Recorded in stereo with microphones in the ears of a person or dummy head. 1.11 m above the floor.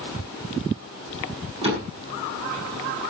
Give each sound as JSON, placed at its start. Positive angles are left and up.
{"t": 1.6, "sound": "a door slam", "side_deg": -40, "distance_m": 6.5}